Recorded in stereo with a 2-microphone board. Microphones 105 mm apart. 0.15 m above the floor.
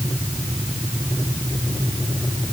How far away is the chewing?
I don't hear chewing.